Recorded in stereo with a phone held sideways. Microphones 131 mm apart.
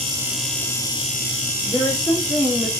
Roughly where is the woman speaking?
Centre.